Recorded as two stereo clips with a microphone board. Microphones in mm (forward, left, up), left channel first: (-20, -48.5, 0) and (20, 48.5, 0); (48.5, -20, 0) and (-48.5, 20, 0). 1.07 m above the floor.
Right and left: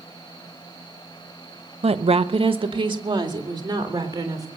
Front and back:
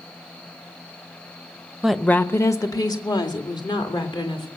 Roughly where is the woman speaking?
Left.